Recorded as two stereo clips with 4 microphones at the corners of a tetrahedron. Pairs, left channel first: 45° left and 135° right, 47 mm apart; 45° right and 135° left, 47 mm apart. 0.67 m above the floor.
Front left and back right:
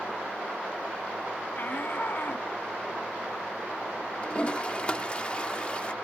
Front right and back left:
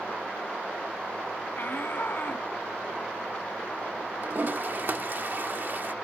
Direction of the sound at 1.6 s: Straight ahead.